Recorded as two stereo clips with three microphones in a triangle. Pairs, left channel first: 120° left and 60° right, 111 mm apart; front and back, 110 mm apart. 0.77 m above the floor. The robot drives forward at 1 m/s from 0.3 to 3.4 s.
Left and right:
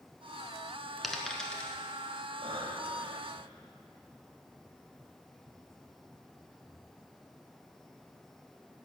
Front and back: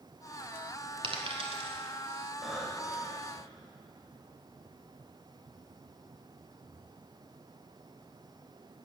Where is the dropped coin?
150° right, 1.2 m; by 1.8 s 160° right, 1.9 m.